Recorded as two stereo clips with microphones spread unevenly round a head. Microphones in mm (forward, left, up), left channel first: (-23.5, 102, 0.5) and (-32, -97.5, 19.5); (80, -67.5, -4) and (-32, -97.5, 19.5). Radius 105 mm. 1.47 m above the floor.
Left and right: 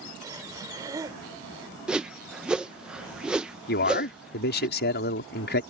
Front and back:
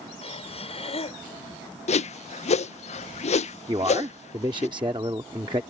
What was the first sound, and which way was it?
Breathing, 20° right.